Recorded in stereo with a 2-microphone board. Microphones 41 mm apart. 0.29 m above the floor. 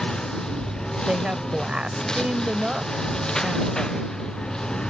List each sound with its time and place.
0.0 s a lawn mower: 15° left (ahead or behind)
1.1 s a woman speaking: 25° right (ahead or behind)